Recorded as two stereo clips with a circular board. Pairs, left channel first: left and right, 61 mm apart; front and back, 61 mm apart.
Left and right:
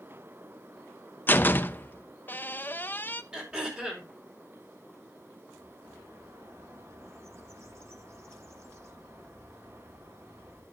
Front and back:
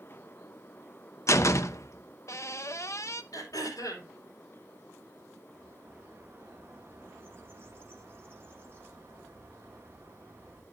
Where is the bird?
130° right, 2.5 m.